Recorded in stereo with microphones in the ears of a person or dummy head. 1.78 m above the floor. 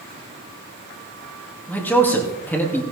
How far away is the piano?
I don't hear a piano.